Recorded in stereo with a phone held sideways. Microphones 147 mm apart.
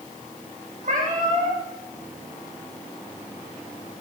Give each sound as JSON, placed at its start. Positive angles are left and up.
{"t": 0.8, "sound": "a cat meowing", "side_deg": -65, "distance_m": 6.0}